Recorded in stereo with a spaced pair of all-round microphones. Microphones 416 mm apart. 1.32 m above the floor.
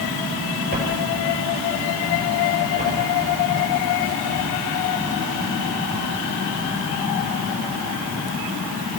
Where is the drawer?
20° right (ahead or behind), 7 m.